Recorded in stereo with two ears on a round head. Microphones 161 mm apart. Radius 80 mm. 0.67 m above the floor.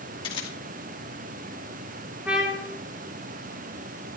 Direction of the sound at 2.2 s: 5° right (ahead or behind).